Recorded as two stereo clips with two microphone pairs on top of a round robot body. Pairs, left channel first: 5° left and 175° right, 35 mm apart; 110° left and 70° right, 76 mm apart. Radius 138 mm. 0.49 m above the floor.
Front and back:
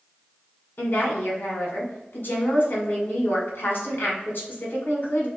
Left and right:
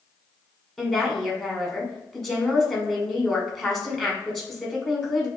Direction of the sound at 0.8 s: 25° left.